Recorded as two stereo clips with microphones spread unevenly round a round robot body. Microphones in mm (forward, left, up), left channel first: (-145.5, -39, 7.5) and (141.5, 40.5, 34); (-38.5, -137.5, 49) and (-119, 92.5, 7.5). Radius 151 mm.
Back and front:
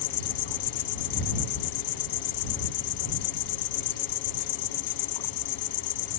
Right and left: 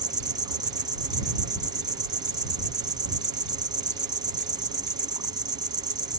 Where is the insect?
175° right.